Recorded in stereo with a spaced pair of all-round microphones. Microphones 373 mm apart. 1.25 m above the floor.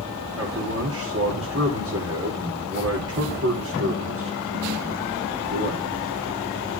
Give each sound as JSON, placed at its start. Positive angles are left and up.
{"t": 0.4, "sound": "a man speaking", "side_deg": -40, "distance_m": 4.0}